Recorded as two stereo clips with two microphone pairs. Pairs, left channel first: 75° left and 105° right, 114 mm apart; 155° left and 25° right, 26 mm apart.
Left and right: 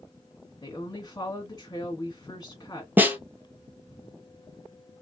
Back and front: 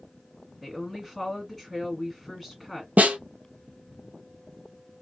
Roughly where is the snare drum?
Ahead right.